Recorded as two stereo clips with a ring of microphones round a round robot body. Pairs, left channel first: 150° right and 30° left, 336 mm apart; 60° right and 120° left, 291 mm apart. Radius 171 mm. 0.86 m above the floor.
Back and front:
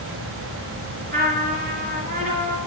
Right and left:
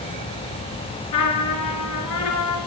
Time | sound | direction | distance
1.1 | a trumpet | 35° right | 3.5 m